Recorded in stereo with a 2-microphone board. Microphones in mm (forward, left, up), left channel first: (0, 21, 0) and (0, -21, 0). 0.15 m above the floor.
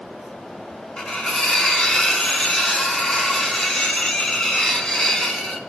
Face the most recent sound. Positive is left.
turn(degrees=20)  # may be behind; listen again after turning